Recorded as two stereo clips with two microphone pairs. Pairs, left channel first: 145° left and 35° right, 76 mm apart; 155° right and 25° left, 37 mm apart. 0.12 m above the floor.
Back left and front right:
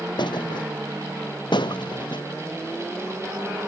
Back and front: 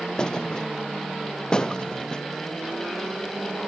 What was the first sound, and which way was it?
A thud, 140° left.